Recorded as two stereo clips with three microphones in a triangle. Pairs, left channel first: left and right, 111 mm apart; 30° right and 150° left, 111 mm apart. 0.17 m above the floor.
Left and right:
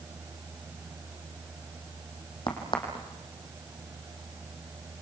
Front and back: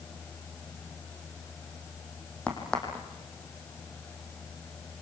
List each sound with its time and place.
2.5 s a crack: 50° left, 4.5 m